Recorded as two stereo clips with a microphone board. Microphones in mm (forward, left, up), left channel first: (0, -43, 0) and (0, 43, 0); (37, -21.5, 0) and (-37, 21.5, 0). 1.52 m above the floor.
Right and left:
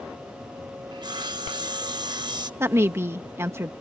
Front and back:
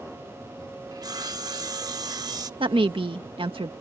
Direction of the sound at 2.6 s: 150° left.